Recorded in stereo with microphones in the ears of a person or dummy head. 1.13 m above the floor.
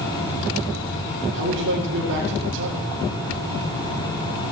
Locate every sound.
1.3 s a man speaking: 65° right (ahead or behind), 2.5 m